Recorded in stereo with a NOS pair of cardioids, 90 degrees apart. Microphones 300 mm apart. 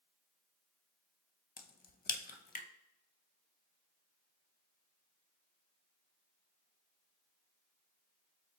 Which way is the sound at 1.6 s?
30° left.